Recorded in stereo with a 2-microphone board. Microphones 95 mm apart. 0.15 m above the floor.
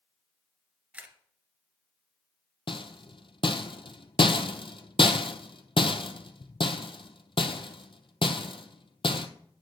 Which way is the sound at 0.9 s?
15° right (ahead or behind).